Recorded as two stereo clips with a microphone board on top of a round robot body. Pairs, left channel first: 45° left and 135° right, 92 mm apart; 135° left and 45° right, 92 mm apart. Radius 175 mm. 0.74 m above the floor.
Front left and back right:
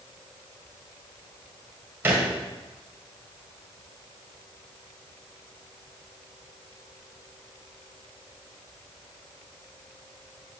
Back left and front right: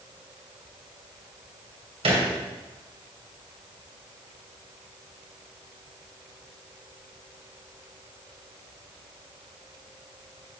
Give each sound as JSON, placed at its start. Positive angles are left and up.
{"t": 2.0, "sound": "a thud", "azimuth_deg": -65, "distance_m": 1.9}